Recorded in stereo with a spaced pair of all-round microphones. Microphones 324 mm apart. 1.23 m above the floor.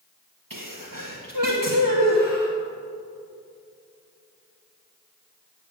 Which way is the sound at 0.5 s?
80° right.